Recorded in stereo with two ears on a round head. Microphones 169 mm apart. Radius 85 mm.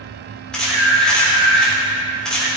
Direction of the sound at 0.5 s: 5° left (ahead or behind).